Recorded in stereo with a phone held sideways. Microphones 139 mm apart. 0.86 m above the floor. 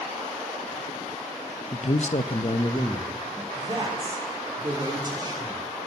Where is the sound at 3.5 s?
30° right (ahead or behind), 2.5 m.